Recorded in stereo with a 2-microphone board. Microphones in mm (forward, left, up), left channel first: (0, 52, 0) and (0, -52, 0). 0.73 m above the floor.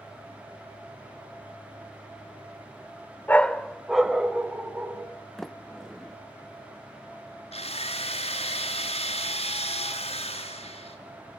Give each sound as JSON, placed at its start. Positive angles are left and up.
{"t": 3.3, "sound": "a dog barking", "side_deg": 15, "distance_m": 0.7}
{"t": 5.4, "sound": "a sliding door", "side_deg": 5, "distance_m": 0.7}
{"t": 7.5, "sound": "a drill", "side_deg": 85, "distance_m": 5.0}